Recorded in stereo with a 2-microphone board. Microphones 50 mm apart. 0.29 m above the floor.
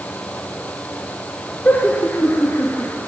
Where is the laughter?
35° left (ahead or behind), 5 m; by 3.0 s 40° left (ahead or behind), 6 m.